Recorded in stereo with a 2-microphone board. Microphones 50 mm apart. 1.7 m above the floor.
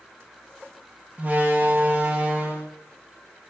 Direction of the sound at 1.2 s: 35° right (ahead or behind).